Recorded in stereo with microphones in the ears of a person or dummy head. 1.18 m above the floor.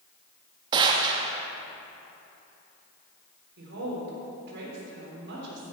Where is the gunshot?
25° right (ahead or behind), 0.7 m.